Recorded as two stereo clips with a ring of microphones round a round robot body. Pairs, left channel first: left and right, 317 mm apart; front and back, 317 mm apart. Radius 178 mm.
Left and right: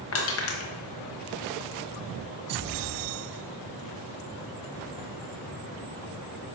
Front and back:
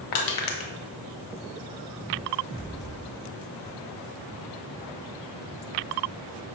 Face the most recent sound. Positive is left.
turn(degrees=35)